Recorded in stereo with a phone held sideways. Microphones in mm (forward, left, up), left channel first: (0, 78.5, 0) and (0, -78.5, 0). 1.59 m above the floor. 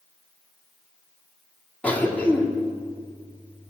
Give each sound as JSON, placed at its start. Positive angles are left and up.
{"t": 1.8, "sound": "a cough", "side_deg": 10, "distance_m": 3.5}